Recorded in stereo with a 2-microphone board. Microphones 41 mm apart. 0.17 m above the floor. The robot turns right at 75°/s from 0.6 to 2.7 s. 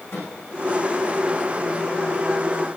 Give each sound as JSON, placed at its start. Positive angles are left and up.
{"t": 0.1, "sound": "a microwave", "side_deg": 75, "distance_m": 9.0}